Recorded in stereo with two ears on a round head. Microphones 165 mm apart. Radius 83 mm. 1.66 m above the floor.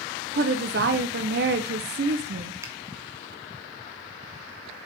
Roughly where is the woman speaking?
Right.